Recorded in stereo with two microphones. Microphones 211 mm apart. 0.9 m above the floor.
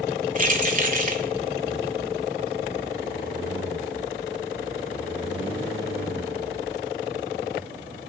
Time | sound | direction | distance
0.3 | keys jangling | 40° right (ahead or behind) | 1.8 m